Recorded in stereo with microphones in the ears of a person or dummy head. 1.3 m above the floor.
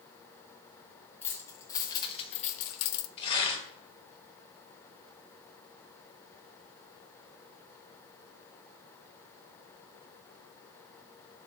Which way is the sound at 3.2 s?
30° left (ahead or behind).